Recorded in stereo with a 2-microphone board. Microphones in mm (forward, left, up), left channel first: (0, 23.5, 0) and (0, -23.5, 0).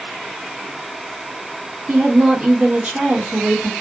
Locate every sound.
1.9 s a woman speaking: 30° right (ahead or behind), 1.5 m